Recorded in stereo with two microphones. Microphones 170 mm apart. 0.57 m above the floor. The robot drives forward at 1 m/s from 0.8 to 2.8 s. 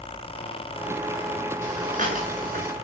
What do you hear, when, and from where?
1.6 s breathing: 45° right (ahead or behind), 8 m; by 2.7 s 55° right (ahead or behind), 7 m